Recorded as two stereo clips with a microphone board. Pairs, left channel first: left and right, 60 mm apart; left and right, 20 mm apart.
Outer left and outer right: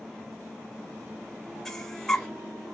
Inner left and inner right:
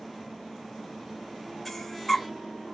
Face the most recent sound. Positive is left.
turn(degrees=10)  # may be behind; listen again after turning